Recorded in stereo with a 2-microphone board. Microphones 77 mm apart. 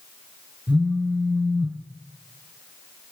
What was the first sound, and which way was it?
A phone buzzing, 20° right (ahead or behind).